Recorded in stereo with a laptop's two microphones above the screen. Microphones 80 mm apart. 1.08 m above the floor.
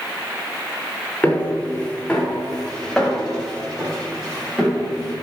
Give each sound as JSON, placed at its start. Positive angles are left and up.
{"t": 1.2, "sound": "footsteps", "side_deg": 15, "distance_m": 5.5}